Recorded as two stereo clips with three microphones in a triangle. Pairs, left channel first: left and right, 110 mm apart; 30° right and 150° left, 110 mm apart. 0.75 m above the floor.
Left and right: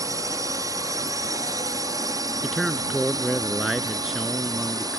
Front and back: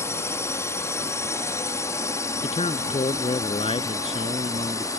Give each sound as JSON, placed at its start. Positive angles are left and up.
{"t": 0.0, "sound": "a drone", "azimuth_deg": -70}
{"t": 2.4, "sound": "a man speaking", "azimuth_deg": 0}